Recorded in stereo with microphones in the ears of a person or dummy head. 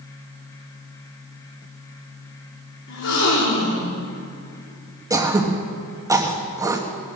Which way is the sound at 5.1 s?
15° right (ahead or behind).